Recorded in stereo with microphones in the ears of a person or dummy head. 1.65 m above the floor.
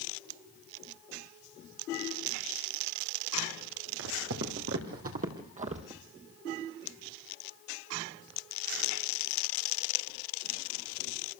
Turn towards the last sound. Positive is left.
turn(degrees=-30)  # may be behind; listen again after turning